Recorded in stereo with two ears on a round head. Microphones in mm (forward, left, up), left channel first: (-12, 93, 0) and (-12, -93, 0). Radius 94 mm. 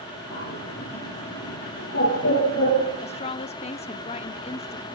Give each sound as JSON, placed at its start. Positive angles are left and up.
{"t": 0.3, "sound": "a bird", "side_deg": 70, "distance_m": 8.5}
{"t": 3.0, "sound": "a woman speaking", "side_deg": 30, "distance_m": 0.7}